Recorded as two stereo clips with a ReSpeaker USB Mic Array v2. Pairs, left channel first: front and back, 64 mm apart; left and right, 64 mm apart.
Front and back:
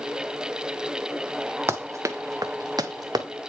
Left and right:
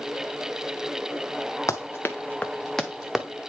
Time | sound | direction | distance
1.7 | running footsteps | 130° left | 0.8 m